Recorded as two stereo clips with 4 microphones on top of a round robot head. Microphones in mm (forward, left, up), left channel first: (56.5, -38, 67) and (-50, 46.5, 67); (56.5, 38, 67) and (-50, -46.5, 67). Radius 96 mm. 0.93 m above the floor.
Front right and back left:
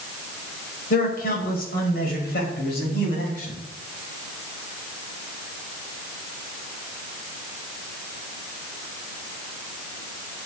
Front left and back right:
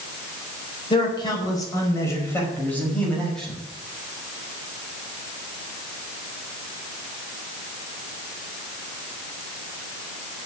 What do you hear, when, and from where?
0.9 s a man speaking: 20° right, 5 m; by 3.6 s 50° right, 6 m